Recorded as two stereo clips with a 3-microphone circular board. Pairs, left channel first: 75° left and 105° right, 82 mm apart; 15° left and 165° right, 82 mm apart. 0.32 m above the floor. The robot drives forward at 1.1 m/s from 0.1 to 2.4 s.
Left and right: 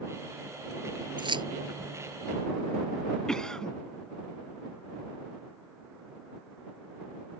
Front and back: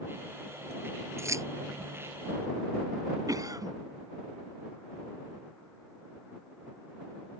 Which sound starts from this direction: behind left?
A cough, at 3.3 s.